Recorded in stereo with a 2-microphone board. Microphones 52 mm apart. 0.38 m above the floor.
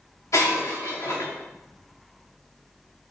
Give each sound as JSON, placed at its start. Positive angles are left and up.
{"t": 0.3, "sound": "breaking glass", "side_deg": 75, "distance_m": 2.5}